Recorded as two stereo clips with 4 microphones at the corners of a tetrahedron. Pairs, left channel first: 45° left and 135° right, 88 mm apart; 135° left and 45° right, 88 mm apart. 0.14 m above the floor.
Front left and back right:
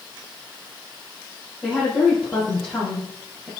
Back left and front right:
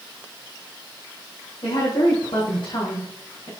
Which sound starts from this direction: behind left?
A woman speaking, at 1.6 s.